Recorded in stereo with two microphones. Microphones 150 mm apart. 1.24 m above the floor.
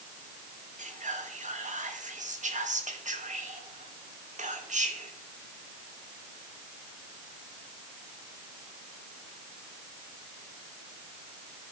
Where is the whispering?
55° right (ahead or behind), 1.3 m.